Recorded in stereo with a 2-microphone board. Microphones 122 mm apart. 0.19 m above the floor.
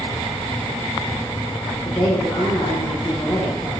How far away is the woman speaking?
About 7.5 m.